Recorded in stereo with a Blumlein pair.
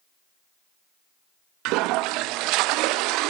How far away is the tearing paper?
No tearing paper in this recording.